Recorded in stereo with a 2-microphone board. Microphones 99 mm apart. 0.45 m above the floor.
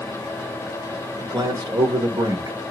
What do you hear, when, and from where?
1.2 s a man speaking: 45° right (ahead or behind), 1.4 m